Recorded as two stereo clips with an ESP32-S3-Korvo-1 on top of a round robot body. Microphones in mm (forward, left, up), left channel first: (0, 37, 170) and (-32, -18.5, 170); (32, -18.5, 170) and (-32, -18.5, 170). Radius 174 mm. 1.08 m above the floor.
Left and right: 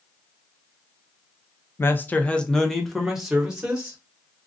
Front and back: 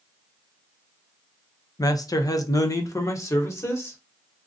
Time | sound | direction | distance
1.8 | a man speaking | 10° left | 0.7 m